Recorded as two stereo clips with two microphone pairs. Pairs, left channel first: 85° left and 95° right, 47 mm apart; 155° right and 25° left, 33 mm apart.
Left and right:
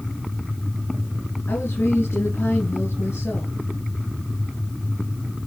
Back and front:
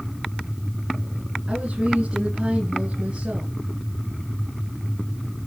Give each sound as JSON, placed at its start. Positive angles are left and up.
{"t": 1.5, "sound": "a woman speaking", "azimuth_deg": 70, "distance_m": 3.0}